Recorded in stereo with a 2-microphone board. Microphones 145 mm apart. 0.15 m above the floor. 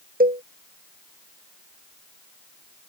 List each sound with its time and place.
0.2 s a cowbell: 70° right (ahead or behind)